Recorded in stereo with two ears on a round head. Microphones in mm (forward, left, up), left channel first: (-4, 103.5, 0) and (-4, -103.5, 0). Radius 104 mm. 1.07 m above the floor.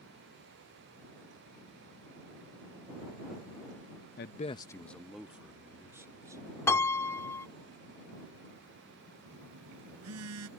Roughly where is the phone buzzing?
Right.